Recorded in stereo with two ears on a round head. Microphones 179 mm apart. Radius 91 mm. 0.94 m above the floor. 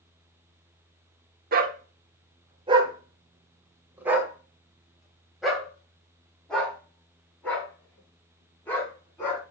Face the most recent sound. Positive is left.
turn(degrees=10)  # may be behind; listen again after turning